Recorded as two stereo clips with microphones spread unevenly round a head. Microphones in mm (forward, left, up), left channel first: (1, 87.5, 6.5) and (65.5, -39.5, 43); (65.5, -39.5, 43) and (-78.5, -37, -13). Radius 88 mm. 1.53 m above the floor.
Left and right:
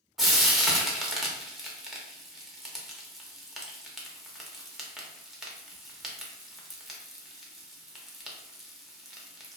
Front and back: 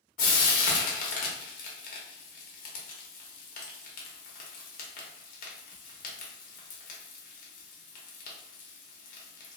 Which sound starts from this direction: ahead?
Frying, at 0.2 s.